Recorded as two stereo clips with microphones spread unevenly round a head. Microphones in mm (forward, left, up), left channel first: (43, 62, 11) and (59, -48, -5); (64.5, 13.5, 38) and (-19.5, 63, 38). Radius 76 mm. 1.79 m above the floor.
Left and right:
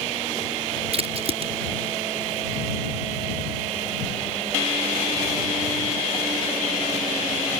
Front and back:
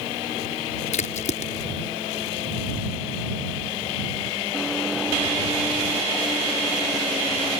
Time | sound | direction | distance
0.9 | a crack | 50° right | ?